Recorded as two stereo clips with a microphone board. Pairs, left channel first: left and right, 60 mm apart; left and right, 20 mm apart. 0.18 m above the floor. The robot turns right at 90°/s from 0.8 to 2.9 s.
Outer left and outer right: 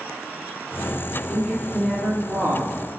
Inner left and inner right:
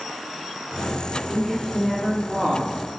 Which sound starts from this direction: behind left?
A woman speaking, at 1.3 s.